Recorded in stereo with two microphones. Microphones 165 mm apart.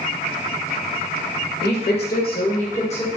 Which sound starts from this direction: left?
A woman speaking, at 1.6 s.